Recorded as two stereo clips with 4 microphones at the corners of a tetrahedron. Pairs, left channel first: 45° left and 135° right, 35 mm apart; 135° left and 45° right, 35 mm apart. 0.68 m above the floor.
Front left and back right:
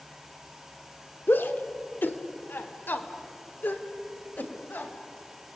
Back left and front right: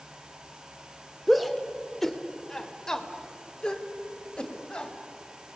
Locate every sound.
1.3 s a shout: 45° left, 1.9 m; by 4.9 s 70° left, 4 m